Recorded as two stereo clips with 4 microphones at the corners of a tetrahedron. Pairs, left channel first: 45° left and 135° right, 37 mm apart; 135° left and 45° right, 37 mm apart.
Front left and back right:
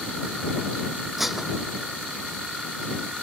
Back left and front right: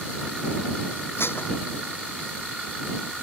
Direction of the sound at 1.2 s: 140° left.